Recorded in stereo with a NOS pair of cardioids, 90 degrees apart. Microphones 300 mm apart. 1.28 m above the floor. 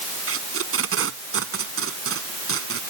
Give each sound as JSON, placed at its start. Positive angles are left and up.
{"t": 0.3, "sound": "tape being pulled", "azimuth_deg": -45}